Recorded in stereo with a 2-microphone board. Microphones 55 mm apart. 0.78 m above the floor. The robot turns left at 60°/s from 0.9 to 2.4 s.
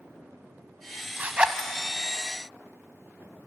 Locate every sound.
1.2 s a zipper: 30° right (ahead or behind), 1.3 m; by 1.7 s centre (ahead or behind), 1.3 m